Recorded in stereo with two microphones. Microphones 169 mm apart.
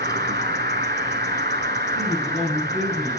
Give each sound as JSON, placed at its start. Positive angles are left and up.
{"t": 0.0, "sound": "an insect", "side_deg": -75, "distance_m": 0.7}
{"t": 1.9, "sound": "a man speaking", "side_deg": -50, "distance_m": 1.9}